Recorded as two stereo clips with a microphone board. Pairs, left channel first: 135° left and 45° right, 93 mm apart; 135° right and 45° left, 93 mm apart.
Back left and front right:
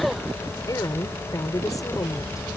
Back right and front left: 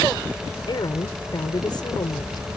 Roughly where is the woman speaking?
Behind.